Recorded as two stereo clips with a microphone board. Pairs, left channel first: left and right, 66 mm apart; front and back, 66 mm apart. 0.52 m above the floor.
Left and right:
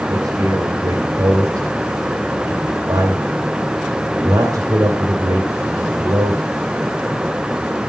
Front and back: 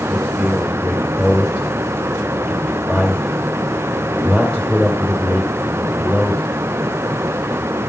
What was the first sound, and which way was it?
A man speaking, 80° right.